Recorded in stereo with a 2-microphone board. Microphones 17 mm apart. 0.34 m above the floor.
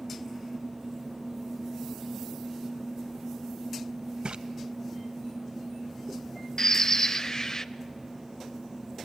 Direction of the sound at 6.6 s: 30° left (ahead or behind).